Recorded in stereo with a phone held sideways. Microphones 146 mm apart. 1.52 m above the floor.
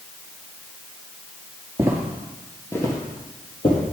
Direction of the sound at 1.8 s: 20° right (ahead or behind).